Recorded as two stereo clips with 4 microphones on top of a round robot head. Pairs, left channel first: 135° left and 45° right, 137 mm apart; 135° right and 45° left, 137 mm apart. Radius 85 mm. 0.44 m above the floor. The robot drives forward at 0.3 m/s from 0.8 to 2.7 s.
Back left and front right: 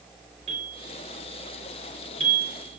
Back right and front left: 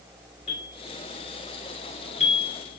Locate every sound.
0.5 s a bell: 85° right, 4 m; by 2.8 s 95° right, 4 m